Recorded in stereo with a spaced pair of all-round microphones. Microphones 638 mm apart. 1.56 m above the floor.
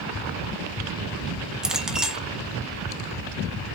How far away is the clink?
About 0.9 m.